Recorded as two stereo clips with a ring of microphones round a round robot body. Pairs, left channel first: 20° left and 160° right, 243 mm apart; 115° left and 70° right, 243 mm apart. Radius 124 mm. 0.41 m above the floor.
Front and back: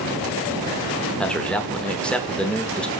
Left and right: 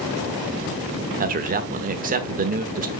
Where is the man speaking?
60° right, 1.1 m.